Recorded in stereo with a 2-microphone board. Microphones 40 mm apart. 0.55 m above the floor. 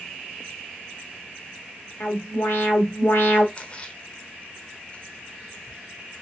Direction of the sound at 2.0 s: 65° left (ahead or behind).